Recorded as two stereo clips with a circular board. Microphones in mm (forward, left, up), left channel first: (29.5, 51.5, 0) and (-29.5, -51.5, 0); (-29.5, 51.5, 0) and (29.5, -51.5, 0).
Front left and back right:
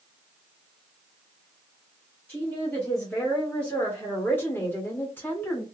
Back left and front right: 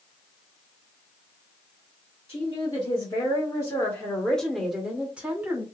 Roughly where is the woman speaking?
Behind left.